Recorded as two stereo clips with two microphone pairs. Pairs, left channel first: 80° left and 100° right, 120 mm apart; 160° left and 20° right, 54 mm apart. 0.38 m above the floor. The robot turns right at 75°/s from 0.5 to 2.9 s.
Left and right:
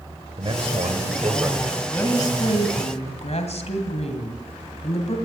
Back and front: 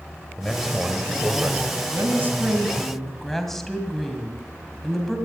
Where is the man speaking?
120° right, 2.0 m; by 1.7 s 30° right, 2.0 m.